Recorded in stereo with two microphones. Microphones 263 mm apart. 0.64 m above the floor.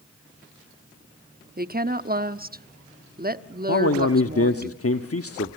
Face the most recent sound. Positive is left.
turn(degrees=60)  # may be behind; listen again after turning